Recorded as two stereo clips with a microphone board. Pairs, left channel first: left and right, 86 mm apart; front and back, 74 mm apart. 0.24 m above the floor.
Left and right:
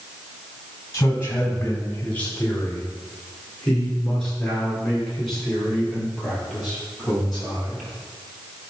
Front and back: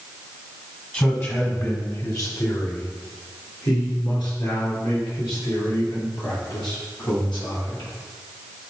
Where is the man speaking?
50° left, 1.9 m; by 7.9 s 5° left, 8 m.